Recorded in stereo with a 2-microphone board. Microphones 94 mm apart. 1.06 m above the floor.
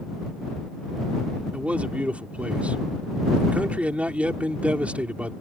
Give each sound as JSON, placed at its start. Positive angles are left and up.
{"t": 1.5, "sound": "a man speaking", "side_deg": -15}